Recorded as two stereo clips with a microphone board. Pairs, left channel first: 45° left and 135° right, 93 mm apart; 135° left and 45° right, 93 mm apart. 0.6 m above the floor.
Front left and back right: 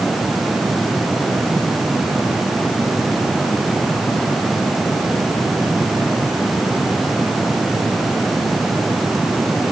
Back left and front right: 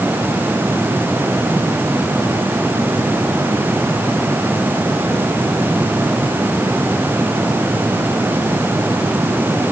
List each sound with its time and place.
Only background noise.